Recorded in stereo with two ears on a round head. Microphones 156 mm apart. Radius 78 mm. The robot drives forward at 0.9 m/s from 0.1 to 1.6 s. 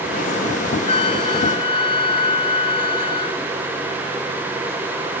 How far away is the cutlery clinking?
No cutlery clinking in this recording.